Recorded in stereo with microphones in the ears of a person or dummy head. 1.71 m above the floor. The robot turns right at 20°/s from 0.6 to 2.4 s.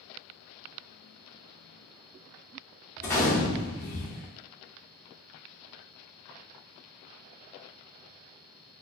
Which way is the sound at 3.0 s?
15° left (ahead or behind).